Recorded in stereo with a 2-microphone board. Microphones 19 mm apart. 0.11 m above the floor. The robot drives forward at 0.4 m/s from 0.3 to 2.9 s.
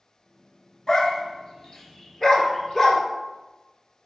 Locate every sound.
0.9 s a dog barking: 30° left (ahead or behind), 0.6 m; by 3.0 s 15° left (ahead or behind), 1.1 m